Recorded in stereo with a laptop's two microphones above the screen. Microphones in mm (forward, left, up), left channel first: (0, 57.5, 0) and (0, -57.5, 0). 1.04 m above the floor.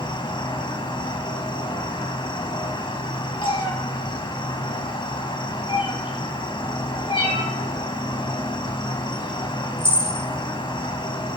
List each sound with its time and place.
0.0 s an insect: 45° left (ahead or behind), 1.9 m
3.4 s a cat meowing: 50° left (ahead or behind), 4 m